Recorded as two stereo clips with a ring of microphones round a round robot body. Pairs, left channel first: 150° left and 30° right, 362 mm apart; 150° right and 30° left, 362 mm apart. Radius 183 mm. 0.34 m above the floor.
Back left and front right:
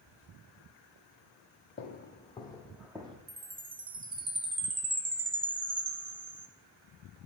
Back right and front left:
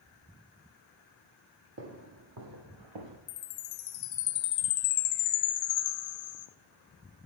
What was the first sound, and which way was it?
Footsteps, 90° left.